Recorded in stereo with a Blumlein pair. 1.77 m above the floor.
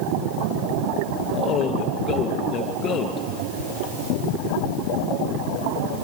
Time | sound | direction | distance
1.3 | a man speaking | 25° left | 2 m